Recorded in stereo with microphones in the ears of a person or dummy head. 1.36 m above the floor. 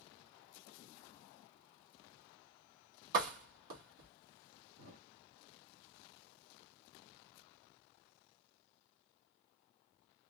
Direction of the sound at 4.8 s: 45° right (ahead or behind).